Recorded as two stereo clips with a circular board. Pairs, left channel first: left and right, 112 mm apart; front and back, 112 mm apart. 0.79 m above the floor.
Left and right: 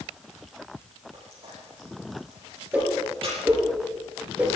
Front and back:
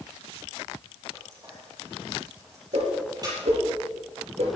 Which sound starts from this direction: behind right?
Frying, at 1.1 s.